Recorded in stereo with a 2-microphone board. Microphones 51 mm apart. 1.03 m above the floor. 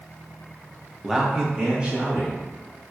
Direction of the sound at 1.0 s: Centre (ahead or behind).